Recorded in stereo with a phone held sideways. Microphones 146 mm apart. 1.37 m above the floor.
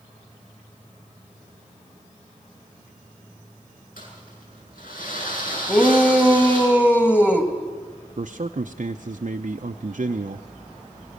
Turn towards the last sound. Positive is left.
turn(degrees=-60)  # may be behind; listen again after turning